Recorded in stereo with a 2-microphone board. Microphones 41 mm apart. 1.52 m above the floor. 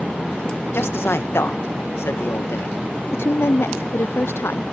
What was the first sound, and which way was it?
A man speaking, 90° left.